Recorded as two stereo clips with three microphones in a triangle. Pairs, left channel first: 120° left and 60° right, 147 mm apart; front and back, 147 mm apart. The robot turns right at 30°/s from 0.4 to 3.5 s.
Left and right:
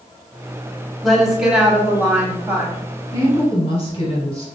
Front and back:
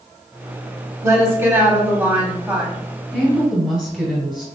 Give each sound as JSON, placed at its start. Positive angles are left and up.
{"t": 1.0, "sound": "a woman speaking", "azimuth_deg": -150, "distance_m": 1.1}
{"t": 3.1, "sound": "a woman speaking", "azimuth_deg": 75, "distance_m": 1.8}